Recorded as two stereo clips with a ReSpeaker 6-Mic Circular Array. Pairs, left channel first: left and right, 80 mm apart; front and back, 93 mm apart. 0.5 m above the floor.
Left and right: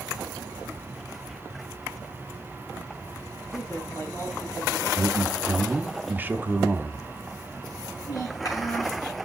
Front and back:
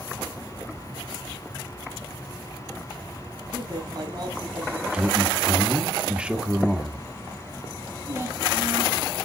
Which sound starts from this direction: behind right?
A man speaking, at 4.9 s.